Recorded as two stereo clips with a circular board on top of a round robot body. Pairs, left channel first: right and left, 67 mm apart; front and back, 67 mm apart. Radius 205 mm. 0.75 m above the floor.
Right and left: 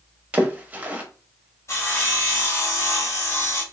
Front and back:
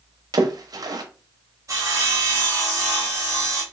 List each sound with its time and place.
0.3 s a splash: 160° left, 0.7 m
1.7 s sawing: 135° right, 0.9 m